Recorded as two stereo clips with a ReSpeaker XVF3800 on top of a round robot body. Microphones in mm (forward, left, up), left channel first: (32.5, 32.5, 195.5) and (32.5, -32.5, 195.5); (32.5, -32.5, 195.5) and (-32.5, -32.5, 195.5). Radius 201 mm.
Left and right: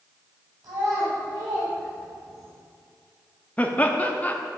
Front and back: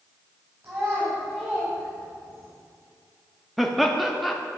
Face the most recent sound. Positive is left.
turn(degrees=90)